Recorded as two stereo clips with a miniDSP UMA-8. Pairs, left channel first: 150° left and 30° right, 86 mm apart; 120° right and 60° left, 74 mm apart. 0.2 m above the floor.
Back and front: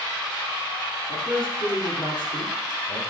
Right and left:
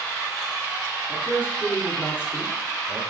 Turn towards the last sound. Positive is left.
turn(degrees=155)